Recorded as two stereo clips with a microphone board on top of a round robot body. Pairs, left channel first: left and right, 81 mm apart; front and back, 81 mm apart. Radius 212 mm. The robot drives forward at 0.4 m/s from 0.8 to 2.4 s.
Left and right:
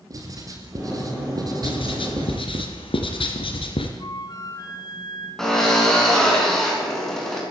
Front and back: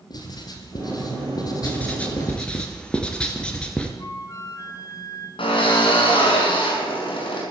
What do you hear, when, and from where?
0.1 s writing: 40° right, 3 m; by 2.6 s 50° right, 2.5 m
1.6 s writing: 70° left, 3 m; by 3.9 s 80° left, 3 m
4.0 s a flute: 50° left, 3.5 m
5.4 s a drill: 5° left, 6.5 m